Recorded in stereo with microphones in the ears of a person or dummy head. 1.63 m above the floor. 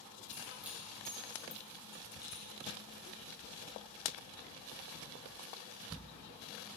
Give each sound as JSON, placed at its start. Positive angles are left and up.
{"t": 0.3, "sound": "keys jangling", "side_deg": -20, "distance_m": 2.5}